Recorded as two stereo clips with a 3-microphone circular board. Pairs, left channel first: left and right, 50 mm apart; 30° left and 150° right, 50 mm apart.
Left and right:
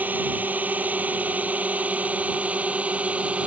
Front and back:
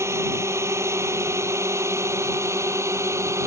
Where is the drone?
140° right; by 3.5 s 150° right.